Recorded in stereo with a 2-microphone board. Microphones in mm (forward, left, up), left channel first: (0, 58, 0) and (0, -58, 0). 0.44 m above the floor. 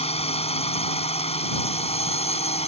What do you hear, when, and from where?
0.0 s a drone: 65° left (ahead or behind)